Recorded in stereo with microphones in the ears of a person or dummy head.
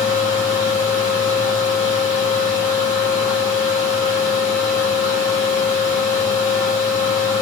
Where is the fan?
45° left (ahead or behind), 1.8 m.